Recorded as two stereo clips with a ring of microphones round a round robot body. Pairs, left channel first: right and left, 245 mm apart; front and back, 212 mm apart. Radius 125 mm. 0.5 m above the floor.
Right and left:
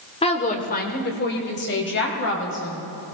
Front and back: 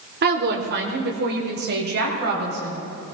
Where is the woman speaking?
150° right, 1.6 m; by 2.8 s 130° right, 4.5 m.